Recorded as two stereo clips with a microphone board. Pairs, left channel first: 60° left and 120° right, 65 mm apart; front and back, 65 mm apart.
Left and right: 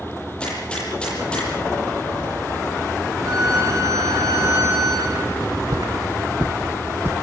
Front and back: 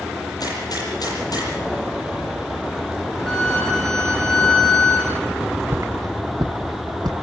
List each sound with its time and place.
0.4 s a gunshot: 15° right, 9.5 m
3.3 s a violin: 80° right, 4 m
5.4 s footsteps: 110° right, 1.7 m; by 7.2 s straight behind, 2 m